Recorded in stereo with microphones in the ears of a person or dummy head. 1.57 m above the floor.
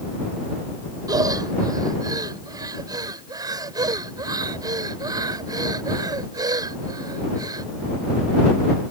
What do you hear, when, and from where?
1.1 s breathing: 20° right (ahead or behind)